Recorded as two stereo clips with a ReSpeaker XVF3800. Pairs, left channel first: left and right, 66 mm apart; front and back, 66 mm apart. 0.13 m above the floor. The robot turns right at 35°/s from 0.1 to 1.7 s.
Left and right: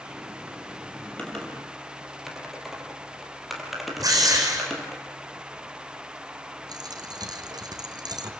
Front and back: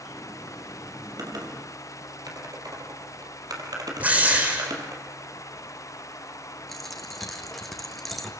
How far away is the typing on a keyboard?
About 4.5 m.